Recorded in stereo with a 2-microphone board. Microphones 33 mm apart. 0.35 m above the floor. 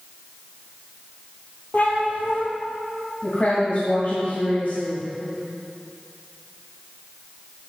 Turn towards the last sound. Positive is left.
turn(degrees=55)  # may be behind; listen again after turning